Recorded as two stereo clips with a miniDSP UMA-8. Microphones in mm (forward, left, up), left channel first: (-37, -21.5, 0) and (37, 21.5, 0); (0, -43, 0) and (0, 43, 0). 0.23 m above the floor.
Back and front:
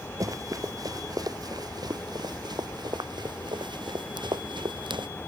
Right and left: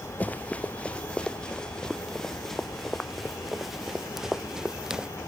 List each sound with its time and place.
0.2 s running footsteps: 20° right; by 5.1 s 10° left